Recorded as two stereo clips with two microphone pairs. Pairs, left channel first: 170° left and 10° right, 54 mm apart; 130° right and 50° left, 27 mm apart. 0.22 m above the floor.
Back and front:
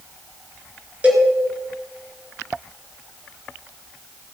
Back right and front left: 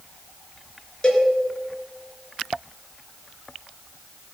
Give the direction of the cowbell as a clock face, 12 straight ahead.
2 o'clock.